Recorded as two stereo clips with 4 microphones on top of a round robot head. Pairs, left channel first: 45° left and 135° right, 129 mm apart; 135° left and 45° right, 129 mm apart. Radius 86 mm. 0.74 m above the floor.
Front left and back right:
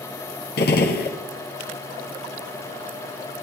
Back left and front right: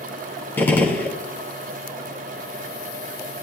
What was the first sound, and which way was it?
A gunshot, 55° left.